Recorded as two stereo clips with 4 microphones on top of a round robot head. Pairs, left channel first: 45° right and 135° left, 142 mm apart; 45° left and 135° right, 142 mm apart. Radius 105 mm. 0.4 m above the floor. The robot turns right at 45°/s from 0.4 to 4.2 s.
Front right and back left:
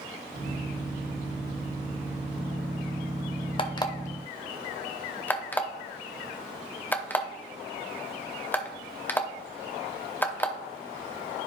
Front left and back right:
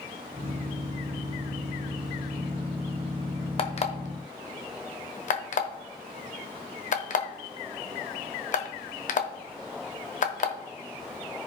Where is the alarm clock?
Straight ahead, 1.1 m; by 10.5 s 30° left, 1.1 m.